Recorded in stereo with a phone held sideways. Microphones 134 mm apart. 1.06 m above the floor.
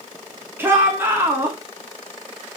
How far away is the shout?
About 3 m.